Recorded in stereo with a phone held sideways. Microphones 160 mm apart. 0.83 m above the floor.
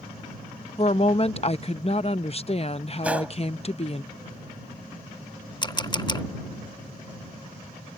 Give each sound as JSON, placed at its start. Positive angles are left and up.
{"t": 0.8, "sound": "a woman speaking", "side_deg": 40}
{"t": 3.0, "sound": "a gunshot", "side_deg": -10}
{"t": 5.6, "sound": "a camera shutter", "side_deg": 30}